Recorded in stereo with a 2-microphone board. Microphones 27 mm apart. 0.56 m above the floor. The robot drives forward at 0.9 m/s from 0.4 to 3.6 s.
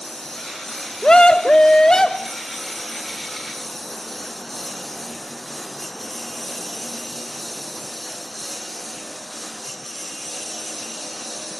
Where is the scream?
35° left (ahead or behind); by 2.4 s 25° left (ahead or behind).